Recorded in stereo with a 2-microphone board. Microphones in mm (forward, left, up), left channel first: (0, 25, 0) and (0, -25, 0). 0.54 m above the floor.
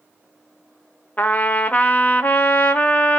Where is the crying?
I don't hear crying.